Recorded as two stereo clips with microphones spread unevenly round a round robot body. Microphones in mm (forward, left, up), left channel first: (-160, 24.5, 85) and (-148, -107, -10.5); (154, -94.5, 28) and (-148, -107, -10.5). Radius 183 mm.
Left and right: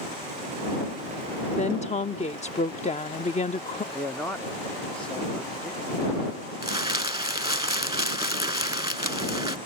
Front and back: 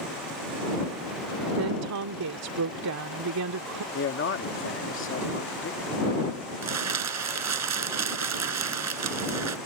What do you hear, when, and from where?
1.6 s a woman speaking: 155° left
3.9 s a man speaking: 35° right
6.6 s crumpling: 145° right